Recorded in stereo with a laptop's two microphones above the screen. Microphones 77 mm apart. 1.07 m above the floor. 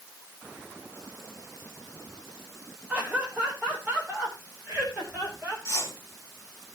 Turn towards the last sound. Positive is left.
turn(degrees=40)  # may be behind; listen again after turning